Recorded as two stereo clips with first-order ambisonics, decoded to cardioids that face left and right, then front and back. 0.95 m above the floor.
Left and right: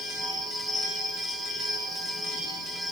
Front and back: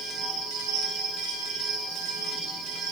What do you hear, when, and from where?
0.0 s an insect: 175° right, 5 m